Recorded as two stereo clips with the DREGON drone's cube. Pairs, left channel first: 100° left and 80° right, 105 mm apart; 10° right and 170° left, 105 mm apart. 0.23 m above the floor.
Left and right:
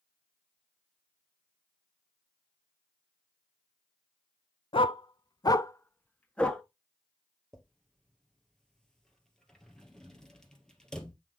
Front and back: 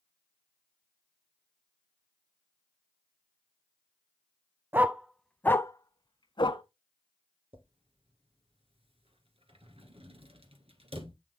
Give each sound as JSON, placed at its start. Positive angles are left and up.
{"t": 4.7, "sound": "a dog barking", "azimuth_deg": 105, "distance_m": 0.5}
{"t": 7.5, "sound": "a drawer", "azimuth_deg": -175, "distance_m": 1.6}